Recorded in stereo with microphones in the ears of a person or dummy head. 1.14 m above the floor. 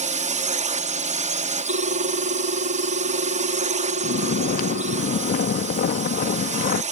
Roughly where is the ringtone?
Right.